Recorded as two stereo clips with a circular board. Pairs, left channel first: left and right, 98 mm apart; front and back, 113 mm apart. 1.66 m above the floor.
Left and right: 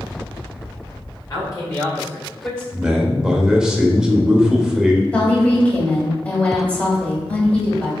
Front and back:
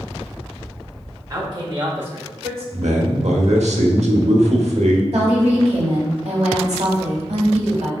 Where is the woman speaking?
165° left, 1.4 m.